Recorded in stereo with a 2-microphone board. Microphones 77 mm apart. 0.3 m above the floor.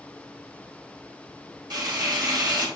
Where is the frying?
60° right (ahead or behind), 2 m.